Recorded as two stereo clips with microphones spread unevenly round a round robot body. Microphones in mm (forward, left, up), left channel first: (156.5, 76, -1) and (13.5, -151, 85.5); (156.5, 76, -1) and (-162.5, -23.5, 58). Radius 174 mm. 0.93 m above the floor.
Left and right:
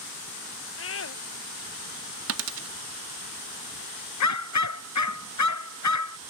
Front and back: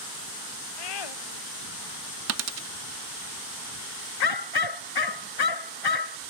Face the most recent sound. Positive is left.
turn(degrees=35)